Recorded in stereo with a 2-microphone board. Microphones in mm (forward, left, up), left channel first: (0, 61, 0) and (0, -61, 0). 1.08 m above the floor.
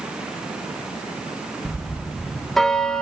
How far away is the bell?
About 0.7 m.